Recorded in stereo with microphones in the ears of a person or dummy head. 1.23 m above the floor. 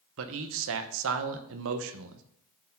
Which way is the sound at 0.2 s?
65° right (ahead or behind).